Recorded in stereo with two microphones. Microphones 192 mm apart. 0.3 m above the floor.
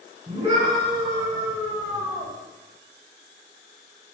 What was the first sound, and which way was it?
A scream, 25° right (ahead or behind).